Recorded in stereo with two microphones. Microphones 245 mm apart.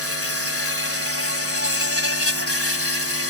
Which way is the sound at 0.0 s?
70° left (ahead or behind).